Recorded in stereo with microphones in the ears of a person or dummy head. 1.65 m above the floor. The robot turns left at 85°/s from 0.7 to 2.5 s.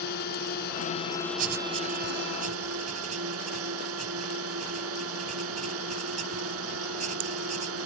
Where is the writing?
45° right (ahead or behind); by 7.8 s 40° right (ahead or behind).